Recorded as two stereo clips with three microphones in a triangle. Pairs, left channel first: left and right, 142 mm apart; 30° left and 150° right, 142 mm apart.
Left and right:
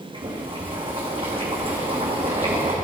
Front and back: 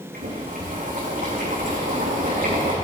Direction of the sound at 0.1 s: 140° right.